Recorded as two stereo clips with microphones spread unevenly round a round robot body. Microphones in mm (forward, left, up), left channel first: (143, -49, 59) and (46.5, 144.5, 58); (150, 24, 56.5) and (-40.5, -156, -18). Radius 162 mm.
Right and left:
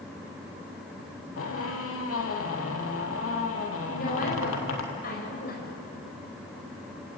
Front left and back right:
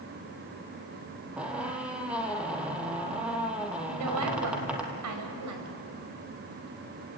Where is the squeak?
45° right, 3 m.